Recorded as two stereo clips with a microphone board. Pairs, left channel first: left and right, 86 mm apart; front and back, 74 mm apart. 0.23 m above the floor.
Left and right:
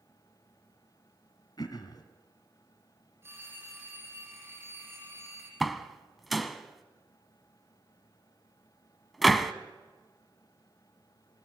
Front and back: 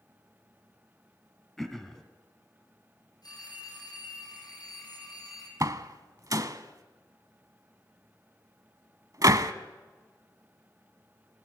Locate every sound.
1.6 s throat clearing: 85° left, 2.5 m
3.2 s a phone ringing: 25° right, 6 m
5.6 s a door slam: straight behind, 1.2 m